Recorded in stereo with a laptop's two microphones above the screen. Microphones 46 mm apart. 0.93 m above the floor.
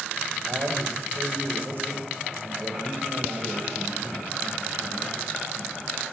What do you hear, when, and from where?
0.4 s a man speaking: 50° right (ahead or behind), 5.5 m